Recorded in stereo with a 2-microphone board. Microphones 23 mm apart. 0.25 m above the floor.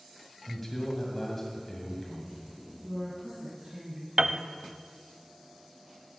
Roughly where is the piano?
Right.